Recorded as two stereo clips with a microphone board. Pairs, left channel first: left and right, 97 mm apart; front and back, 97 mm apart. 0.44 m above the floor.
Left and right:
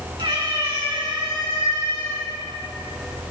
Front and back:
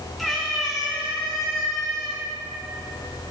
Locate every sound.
0.2 s a cat meowing: 85° right, 3 m; by 2.2 s 80° right, 4 m